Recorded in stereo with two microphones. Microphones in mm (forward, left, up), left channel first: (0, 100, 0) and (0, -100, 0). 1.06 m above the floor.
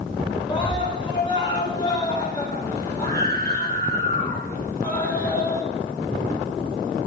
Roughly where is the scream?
Left.